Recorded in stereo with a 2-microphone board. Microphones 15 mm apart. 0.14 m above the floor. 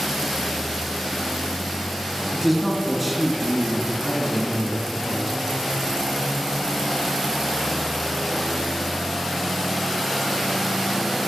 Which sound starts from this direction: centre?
A man speaking, at 2.3 s.